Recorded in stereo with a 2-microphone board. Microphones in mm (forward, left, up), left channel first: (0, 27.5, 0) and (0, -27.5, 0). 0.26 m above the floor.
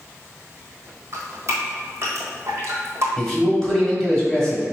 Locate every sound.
1.1 s dripping: 50° right (ahead or behind), 1.5 m
3.2 s a man speaking: 10° left (ahead or behind), 1.6 m